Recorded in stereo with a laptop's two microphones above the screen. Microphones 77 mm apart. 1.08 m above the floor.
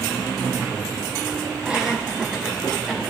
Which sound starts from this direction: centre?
Laughter, at 1.6 s.